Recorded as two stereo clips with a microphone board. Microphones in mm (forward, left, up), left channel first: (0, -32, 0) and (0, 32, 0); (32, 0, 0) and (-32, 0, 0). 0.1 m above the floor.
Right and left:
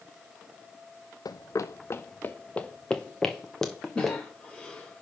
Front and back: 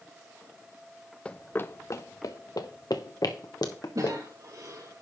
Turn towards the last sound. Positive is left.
turn(degrees=-165)